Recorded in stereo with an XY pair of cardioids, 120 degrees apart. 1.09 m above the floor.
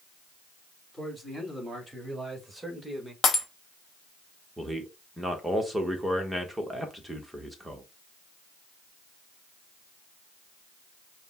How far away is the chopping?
No chopping in this recording.